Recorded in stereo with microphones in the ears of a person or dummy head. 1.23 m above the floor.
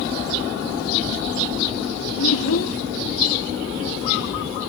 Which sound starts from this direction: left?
A child speaking, at 2.2 s.